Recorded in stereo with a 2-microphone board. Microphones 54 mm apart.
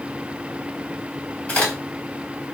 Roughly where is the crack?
Left.